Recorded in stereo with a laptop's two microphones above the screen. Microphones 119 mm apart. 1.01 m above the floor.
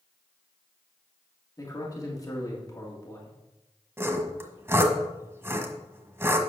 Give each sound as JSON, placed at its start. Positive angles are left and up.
{"t": 1.6, "sound": "a man speaking", "side_deg": 30, "distance_m": 2.0}
{"t": 4.0, "sound": "sawing", "side_deg": -20, "distance_m": 1.4}